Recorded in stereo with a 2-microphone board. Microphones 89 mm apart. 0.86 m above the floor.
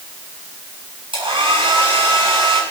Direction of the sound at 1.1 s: 75° right (ahead or behind).